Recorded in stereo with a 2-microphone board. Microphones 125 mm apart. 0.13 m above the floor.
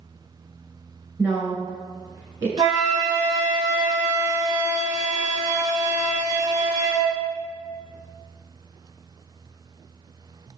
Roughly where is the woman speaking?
Right.